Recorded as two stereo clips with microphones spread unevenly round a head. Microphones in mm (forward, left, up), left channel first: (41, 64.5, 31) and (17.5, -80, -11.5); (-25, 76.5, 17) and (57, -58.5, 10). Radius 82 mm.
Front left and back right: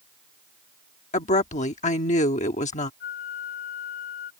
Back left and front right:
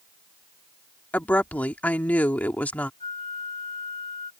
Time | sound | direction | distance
1.1 | a woman speaking | 40° left | ?
3.0 | a flute | 65° left | ?